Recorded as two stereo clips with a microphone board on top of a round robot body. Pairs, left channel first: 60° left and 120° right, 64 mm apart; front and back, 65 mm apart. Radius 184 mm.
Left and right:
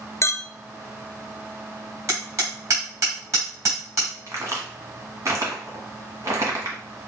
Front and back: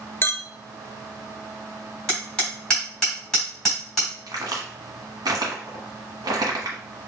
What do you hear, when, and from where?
0.2 s a clink: 40° left, 0.7 m
2.1 s hammering: 80° right, 3 m
4.3 s a crack: 160° right, 1.3 m